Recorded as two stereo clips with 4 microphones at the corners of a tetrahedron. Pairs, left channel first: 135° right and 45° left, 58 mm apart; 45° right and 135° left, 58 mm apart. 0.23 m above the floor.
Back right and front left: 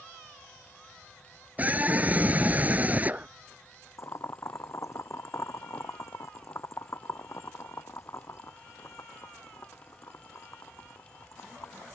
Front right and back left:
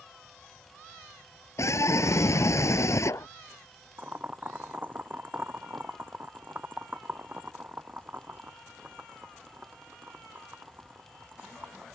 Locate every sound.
1.6 s a scream: 15° right
4.0 s boiling: 170° right